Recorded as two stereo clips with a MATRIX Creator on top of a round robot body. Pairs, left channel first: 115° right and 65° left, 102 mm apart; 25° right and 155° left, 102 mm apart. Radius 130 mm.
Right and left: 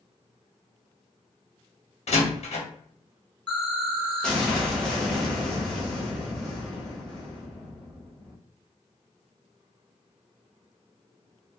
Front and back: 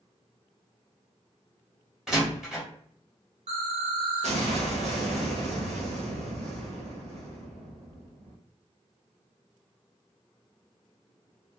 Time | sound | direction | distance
2.1 | a door slam | 120° right | 1.4 m
3.5 | an explosion | 165° left | 1.1 m